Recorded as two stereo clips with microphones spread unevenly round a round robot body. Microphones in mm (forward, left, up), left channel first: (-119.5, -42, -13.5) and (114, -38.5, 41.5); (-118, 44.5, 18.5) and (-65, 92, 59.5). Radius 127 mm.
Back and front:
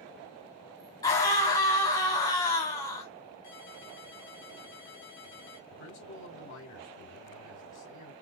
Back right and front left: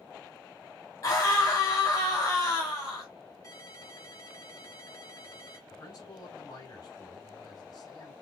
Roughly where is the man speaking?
Behind right.